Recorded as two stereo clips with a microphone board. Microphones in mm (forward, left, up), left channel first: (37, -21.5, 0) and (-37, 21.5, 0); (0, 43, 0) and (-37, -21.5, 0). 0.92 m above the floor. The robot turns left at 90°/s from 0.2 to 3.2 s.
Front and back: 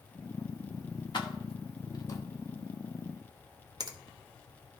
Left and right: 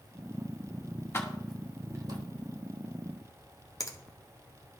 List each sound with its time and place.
1.1 s keys jangling: 5° left, 0.9 m; by 2.2 s 95° right, 0.9 m
3.8 s a finger snap: 110° left, 0.8 m